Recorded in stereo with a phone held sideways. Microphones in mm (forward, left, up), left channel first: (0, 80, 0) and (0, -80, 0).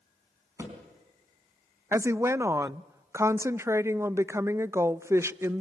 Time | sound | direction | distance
0.6 | a thud | 15° right (ahead or behind) | 4 m
1.9 | a woman speaking | 15° right (ahead or behind) | 0.5 m